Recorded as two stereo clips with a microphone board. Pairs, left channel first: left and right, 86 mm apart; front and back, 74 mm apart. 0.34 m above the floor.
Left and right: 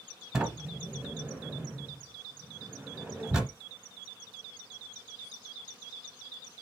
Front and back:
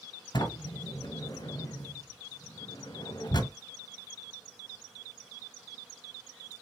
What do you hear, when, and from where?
0.3 s a sliding door: 10° right, 1.1 m